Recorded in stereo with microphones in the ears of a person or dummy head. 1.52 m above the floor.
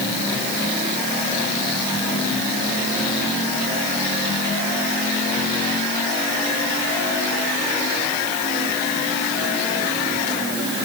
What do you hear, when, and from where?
Only background noise.